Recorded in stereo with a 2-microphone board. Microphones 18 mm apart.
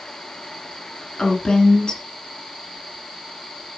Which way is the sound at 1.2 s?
55° left (ahead or behind).